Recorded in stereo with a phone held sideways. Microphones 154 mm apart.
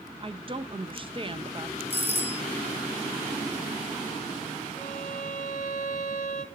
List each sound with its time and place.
0.2 s a woman speaking: 35° right (ahead or behind), 1.0 m
1.9 s a doorbell: 40° right (ahead or behind), 1.8 m
4.8 s a violin: 65° left (ahead or behind), 2.5 m